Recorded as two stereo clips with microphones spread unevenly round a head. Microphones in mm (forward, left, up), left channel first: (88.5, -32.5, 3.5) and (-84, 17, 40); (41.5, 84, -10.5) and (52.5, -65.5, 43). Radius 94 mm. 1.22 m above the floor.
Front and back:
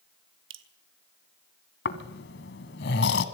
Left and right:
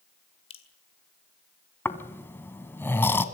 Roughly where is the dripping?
Behind.